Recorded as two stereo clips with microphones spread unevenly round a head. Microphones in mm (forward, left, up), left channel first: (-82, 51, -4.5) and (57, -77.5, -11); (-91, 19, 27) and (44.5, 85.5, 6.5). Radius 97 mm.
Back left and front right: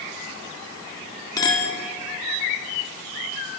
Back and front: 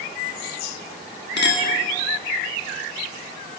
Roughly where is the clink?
Behind right.